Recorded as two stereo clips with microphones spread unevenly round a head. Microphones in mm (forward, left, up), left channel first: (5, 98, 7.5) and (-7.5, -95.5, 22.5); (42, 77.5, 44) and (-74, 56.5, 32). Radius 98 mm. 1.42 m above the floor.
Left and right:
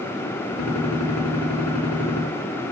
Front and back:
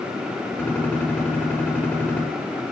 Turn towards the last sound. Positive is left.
turn(degrees=85)